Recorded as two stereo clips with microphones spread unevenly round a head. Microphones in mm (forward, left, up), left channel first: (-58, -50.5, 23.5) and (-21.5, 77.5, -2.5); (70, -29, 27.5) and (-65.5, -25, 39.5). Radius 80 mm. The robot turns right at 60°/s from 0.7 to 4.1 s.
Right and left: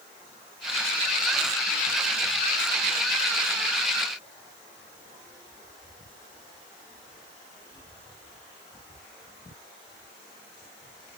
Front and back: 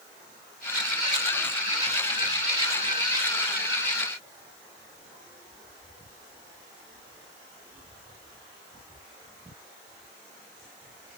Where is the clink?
I don't hear a clink.